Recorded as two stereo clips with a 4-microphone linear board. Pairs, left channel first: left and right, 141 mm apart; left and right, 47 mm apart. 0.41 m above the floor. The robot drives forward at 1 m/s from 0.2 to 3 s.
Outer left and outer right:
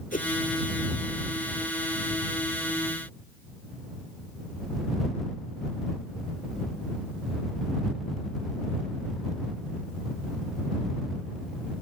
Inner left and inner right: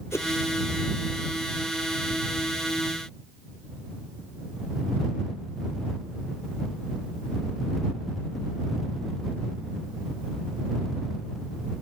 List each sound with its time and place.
0.1 s a whoosh: 70° left (ahead or behind)